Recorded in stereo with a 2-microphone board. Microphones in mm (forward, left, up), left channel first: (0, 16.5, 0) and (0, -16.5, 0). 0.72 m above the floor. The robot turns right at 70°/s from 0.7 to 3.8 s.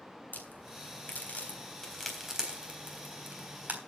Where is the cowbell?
No cowbell in this recording.